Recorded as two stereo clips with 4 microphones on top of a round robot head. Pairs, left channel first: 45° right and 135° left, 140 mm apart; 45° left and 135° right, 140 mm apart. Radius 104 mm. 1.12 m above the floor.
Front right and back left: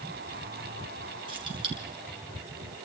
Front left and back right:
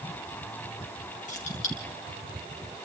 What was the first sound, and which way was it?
Keys jangling, 80° left.